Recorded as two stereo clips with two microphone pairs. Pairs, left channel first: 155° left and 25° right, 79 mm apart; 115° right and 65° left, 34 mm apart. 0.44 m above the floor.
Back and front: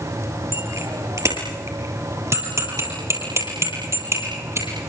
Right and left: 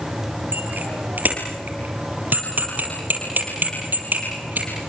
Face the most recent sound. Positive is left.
turn(degrees=30)